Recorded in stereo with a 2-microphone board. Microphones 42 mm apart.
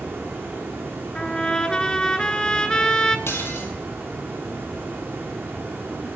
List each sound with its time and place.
0.0 s running water: 70° right (ahead or behind), 5 m
1.1 s a trumpet: 15° left (ahead or behind), 0.9 m
3.3 s dishes clattering: 70° left (ahead or behind), 2.5 m